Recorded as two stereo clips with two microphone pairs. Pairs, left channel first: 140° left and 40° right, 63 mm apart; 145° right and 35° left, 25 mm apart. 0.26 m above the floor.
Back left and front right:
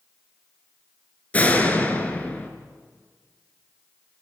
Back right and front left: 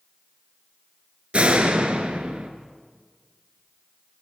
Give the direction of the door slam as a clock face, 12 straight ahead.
10 o'clock.